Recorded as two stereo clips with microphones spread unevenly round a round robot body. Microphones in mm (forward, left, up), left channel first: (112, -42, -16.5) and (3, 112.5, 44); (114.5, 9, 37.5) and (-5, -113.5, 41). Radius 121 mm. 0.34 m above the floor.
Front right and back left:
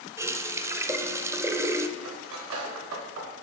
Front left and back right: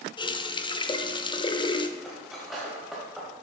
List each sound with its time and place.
0.2 s a running tap: 30° left, 0.5 m
2.0 s cutlery clinking: 135° left, 1.1 m